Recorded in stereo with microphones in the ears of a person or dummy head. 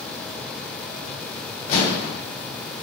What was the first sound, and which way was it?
An explosion, 45° left (ahead or behind).